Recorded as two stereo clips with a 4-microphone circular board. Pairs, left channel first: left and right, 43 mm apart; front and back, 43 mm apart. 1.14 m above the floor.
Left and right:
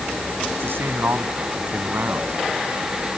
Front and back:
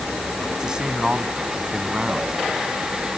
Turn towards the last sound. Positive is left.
turn(degrees=-110)